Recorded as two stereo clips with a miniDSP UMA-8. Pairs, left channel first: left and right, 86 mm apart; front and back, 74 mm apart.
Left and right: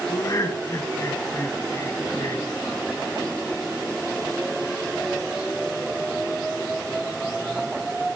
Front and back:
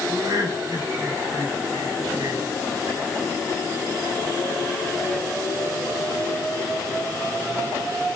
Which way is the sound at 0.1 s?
130° left.